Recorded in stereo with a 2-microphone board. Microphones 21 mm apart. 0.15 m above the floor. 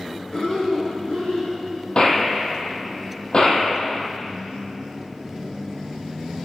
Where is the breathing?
45° left (ahead or behind), 7 m.